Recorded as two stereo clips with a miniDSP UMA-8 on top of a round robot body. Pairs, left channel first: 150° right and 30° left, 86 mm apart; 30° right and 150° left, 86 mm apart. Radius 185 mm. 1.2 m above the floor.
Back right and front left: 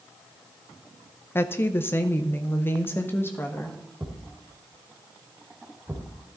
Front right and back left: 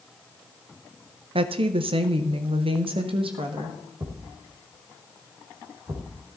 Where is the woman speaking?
145° left, 0.6 m.